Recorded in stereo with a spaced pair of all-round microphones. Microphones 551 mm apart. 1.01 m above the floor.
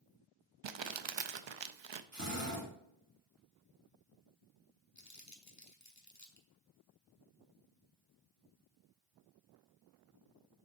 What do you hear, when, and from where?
0.6 s crumpling: 55° right (ahead or behind), 0.5 m
2.1 s a drill: 30° right (ahead or behind), 2.5 m
5.0 s crumpling: 30° left (ahead or behind), 1.1 m